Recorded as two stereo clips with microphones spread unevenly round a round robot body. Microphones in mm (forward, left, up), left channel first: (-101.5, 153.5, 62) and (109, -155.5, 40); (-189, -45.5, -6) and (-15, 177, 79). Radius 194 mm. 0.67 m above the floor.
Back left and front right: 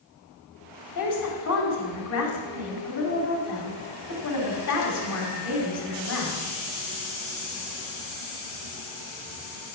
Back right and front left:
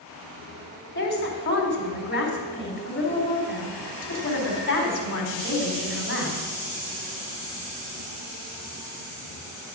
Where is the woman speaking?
Straight behind, 4.5 m.